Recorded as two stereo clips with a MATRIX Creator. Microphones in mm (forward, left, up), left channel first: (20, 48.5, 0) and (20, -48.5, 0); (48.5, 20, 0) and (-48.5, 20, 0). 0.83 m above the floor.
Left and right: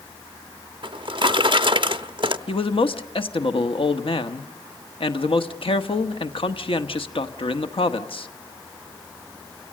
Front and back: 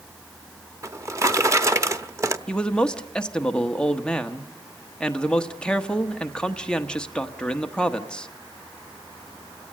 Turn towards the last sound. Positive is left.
turn(degrees=80)